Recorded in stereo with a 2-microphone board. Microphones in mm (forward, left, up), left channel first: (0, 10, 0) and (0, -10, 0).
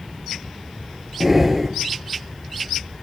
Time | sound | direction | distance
1.2 | breathing | 15° right (ahead or behind) | 0.9 m